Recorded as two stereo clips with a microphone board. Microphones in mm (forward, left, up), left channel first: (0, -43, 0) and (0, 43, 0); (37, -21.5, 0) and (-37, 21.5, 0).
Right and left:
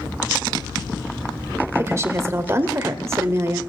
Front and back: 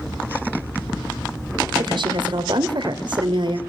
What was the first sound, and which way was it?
A woman speaking, 145° left.